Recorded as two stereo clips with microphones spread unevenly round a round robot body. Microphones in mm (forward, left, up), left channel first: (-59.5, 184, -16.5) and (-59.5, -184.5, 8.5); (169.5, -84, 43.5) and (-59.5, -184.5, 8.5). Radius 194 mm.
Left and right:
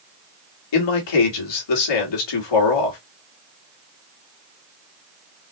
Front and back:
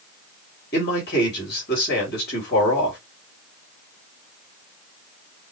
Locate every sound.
0.7 s a man speaking: 85° left, 2 m